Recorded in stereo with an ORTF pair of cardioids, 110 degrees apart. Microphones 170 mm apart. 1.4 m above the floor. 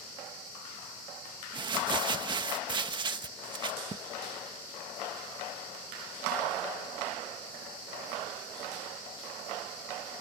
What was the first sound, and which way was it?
Crumpling, 25° right.